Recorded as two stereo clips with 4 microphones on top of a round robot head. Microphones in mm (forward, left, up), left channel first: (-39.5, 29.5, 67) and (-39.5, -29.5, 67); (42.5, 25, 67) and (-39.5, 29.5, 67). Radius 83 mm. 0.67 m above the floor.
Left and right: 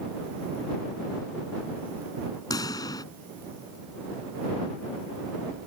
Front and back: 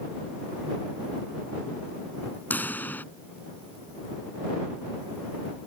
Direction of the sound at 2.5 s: 65° left.